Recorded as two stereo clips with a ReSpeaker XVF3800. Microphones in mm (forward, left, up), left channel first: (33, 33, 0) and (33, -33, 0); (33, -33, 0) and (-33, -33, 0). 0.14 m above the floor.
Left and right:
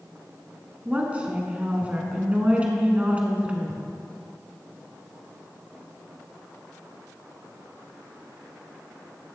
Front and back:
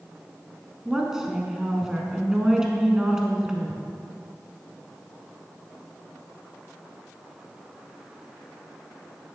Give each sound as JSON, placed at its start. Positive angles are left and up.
{"t": 0.8, "sound": "a woman speaking", "azimuth_deg": -115, "distance_m": 1.0}